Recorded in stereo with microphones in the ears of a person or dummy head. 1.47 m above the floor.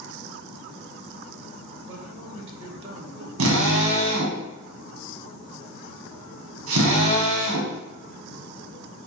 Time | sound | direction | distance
1.9 | a man speaking | 35° right (ahead or behind) | 2 m
3.4 | a drill | 80° right | 1.3 m